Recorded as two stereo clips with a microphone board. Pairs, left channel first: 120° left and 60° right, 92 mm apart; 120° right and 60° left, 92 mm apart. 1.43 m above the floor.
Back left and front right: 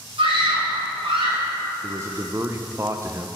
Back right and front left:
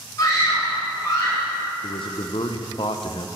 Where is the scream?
65° right, 4.5 m.